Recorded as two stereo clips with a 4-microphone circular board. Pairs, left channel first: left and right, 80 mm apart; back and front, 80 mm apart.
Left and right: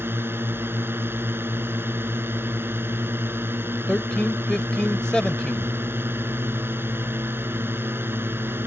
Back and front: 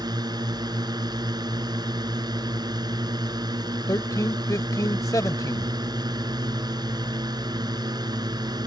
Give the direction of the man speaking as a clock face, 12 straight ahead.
6 o'clock.